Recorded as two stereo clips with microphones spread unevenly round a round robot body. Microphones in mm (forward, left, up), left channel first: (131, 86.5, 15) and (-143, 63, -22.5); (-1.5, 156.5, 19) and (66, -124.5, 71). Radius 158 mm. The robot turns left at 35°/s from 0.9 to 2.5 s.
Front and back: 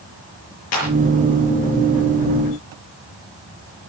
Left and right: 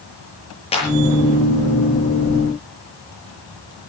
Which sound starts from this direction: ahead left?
A clap, at 0.7 s.